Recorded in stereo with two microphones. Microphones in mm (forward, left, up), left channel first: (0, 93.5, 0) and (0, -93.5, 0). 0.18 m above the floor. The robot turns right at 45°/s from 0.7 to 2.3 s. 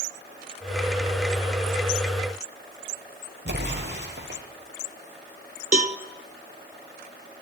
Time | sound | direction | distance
3.5 | an explosion | 75° right (ahead or behind) | 2.5 m
5.7 | a cowbell | 50° right (ahead or behind) | 0.5 m